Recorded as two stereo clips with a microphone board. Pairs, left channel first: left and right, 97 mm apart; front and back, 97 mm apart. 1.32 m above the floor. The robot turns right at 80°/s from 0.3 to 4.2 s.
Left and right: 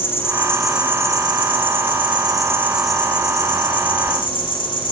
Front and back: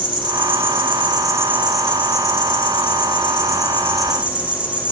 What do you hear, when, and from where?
0.0 s an insect: 155° left, 2 m; by 4.9 s 105° left, 2 m